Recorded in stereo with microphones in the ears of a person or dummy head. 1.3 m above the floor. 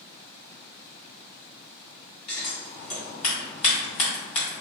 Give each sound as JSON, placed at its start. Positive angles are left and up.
{"t": 2.3, "sound": "scissors", "side_deg": 35, "distance_m": 1.9}